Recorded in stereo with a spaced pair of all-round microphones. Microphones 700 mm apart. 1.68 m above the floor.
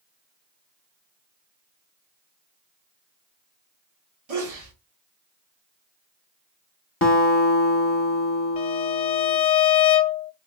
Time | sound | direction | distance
4.3 | a sneeze | 55° right (ahead or behind) | 1.1 m
7.0 | a guitar | 20° left (ahead or behind) | 0.8 m
8.6 | a violin | 70° left (ahead or behind) | 0.6 m